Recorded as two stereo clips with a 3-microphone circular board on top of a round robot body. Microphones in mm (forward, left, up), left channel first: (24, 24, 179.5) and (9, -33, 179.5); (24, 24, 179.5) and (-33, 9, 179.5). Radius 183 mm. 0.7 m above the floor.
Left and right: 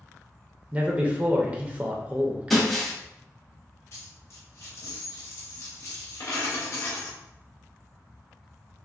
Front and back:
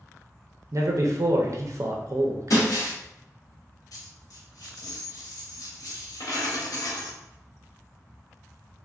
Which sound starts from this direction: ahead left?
A dropped coin, at 3.9 s.